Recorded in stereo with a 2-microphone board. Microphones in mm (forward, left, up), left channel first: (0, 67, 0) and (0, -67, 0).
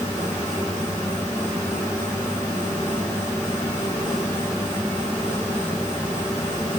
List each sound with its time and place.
Only background noise.